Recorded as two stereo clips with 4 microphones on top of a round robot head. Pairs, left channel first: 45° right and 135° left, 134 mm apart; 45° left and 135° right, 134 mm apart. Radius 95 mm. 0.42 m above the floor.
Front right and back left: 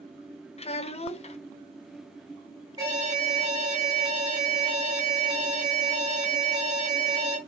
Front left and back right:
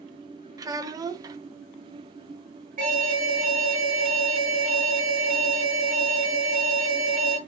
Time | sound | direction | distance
0.6 | a child speaking | 75° right | 1.1 m
2.8 | an alarm | 160° right | 5 m